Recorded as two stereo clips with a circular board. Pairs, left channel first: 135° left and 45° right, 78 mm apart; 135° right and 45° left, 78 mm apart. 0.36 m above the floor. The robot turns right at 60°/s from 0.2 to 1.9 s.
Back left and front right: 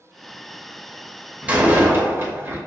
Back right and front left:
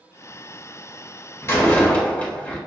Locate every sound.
1.4 s a door slam: 105° right, 0.8 m; by 2.6 s 80° right, 0.8 m